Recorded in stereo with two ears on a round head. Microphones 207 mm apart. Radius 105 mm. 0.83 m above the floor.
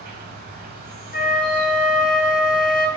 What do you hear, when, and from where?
0.0 s an insect: 45° right (ahead or behind), 1.1 m
1.1 s a flute: 35° left (ahead or behind), 0.6 m